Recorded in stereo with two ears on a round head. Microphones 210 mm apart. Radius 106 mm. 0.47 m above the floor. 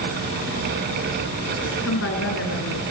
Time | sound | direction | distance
1.6 | a woman speaking | 55° left (ahead or behind) | 4.5 m